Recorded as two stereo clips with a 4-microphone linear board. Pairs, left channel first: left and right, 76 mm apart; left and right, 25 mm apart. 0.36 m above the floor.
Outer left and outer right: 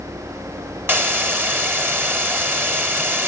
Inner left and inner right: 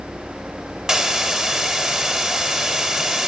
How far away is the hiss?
About 2.0 m.